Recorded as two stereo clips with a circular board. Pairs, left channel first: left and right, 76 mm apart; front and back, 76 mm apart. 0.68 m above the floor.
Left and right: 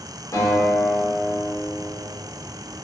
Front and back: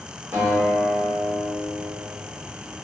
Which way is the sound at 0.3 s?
125° left.